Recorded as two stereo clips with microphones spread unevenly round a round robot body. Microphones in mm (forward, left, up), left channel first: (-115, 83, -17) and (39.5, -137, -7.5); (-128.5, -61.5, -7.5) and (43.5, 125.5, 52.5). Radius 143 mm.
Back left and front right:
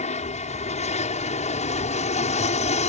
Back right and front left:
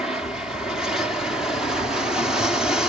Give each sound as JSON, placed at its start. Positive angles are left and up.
{"t": 0.0, "sound": "an aircraft", "azimuth_deg": 160}